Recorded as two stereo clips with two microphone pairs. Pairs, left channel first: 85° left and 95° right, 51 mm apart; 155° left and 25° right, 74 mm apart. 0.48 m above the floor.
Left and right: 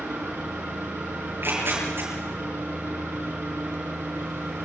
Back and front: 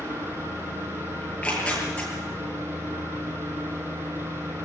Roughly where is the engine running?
Right.